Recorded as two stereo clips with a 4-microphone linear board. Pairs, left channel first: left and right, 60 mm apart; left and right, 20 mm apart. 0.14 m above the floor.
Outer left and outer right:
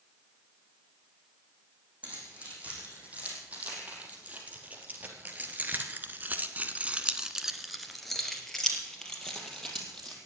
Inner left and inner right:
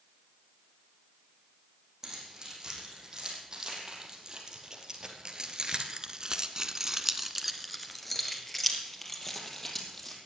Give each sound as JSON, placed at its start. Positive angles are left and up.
{"t": 2.0, "sound": "keys jangling", "side_deg": -25, "distance_m": 6.0}